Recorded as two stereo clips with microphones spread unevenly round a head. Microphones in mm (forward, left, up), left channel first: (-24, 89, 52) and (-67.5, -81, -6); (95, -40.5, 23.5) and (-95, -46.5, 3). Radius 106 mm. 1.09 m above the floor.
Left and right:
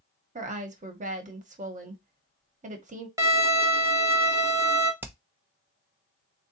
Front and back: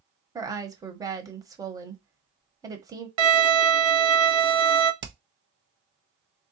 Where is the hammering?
175° right, 0.8 m.